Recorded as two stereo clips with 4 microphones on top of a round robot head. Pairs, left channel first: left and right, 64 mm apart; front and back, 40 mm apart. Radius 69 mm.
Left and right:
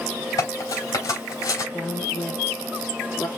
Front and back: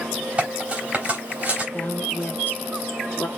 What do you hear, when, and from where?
0.4 s cutlery clinking: 120° left, 3 m
1.7 s a woman speaking: 35° left, 1.5 m